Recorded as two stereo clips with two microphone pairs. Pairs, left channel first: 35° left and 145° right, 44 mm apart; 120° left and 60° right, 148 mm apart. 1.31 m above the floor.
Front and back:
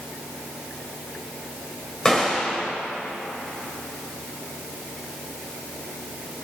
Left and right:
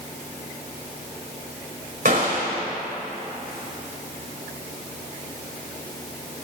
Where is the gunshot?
40° right, 3.5 m.